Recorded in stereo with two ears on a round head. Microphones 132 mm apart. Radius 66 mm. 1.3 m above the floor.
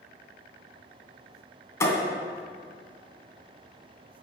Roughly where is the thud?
Left.